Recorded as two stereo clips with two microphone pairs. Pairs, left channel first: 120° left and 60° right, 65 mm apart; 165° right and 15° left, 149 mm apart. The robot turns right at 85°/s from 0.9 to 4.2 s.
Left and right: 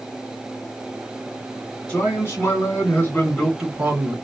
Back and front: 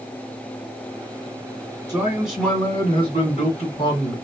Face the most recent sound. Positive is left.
turn(degrees=-100)